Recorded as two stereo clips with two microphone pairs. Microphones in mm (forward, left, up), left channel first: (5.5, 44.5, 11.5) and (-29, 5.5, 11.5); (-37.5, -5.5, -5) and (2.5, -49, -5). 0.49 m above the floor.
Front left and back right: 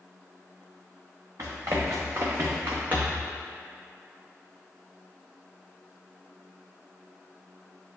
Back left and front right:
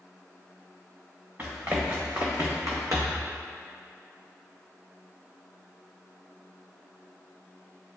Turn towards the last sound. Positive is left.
turn(degrees=-70)